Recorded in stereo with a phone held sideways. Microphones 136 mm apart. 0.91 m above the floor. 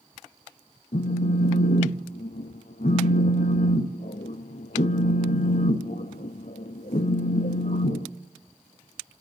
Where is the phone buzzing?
75° left (ahead or behind), 0.6 m.